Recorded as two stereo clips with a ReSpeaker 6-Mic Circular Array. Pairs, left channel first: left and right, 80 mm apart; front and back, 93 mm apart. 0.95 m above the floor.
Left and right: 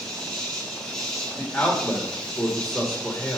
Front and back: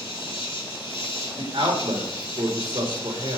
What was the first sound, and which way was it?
An insect, 10° left.